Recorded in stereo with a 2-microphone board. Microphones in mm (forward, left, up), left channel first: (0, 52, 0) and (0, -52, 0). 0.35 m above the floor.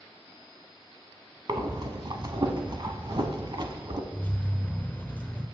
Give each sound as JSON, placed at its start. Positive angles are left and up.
{"t": 1.5, "sound": "breathing", "side_deg": -45, "distance_m": 0.8}
{"t": 4.1, "sound": "keys jangling", "side_deg": 15, "distance_m": 0.9}